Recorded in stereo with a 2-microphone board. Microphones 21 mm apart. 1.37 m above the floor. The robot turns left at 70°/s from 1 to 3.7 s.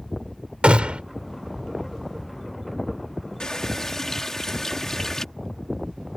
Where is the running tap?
45° left (ahead or behind); by 5.2 s 25° left (ahead or behind).